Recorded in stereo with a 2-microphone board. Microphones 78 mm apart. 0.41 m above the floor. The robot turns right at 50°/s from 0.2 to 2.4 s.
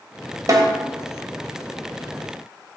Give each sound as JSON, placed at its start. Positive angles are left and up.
{"t": 0.5, "sound": "a snare drum", "side_deg": -50, "distance_m": 1.4}